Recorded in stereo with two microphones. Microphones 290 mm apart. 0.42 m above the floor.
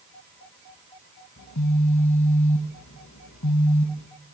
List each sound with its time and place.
1.4 s a phone buzzing: 70° left (ahead or behind), 1.1 m